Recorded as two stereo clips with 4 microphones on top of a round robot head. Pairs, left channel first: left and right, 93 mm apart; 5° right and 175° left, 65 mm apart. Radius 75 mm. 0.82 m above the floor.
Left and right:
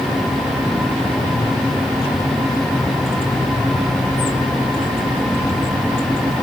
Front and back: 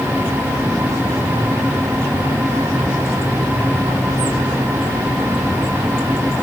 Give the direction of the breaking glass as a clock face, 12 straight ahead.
I don't hear breaking glass.